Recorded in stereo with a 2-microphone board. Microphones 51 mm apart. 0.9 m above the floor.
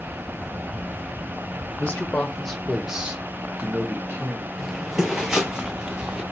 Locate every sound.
1.8 s a man speaking: 35° left (ahead or behind), 0.9 m; by 4.5 s 45° right (ahead or behind), 1.4 m
4.6 s footsteps: 5° right (ahead or behind), 0.9 m; by 6.2 s 20° right (ahead or behind), 1.7 m